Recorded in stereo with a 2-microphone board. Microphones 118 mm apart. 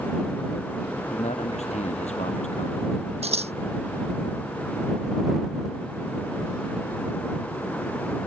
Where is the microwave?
No microwave in this recording.